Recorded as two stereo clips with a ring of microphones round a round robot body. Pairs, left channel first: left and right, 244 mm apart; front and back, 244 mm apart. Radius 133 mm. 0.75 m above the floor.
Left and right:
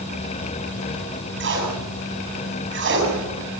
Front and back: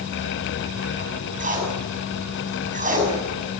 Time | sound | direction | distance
1.4 | tape being pulled | 125° right | 7 m